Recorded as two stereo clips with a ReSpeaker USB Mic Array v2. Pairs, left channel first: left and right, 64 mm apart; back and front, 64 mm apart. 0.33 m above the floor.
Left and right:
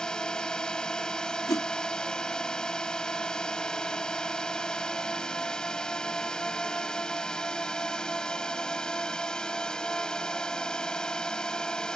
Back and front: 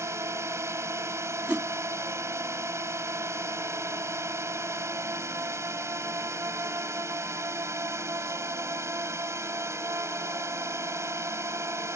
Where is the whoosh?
75° left.